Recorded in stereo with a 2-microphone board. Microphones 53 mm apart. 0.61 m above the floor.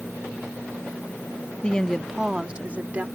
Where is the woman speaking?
20° left (ahead or behind); by 3.0 s 30° right (ahead or behind).